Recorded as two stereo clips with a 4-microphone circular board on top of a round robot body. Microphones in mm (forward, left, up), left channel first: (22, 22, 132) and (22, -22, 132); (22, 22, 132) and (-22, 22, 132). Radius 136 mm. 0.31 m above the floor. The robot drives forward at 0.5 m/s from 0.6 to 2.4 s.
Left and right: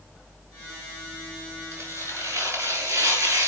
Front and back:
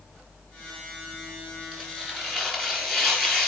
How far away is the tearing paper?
About 4.5 m.